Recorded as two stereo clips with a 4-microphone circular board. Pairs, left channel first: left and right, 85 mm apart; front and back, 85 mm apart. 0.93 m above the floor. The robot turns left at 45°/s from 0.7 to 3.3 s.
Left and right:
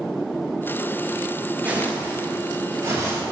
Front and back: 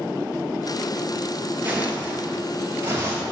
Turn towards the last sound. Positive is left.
turn(degrees=-145)